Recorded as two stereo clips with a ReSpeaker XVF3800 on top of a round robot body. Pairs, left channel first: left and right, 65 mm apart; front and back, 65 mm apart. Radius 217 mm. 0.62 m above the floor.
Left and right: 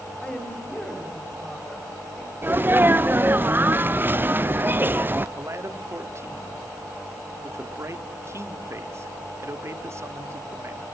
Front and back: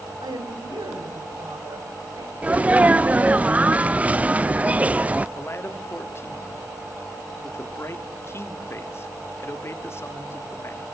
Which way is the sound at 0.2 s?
165° left.